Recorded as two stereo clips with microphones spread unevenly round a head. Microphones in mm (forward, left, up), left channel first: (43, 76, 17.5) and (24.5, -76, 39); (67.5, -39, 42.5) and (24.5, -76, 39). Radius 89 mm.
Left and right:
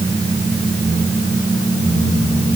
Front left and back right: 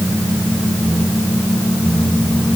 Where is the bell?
No bell in this recording.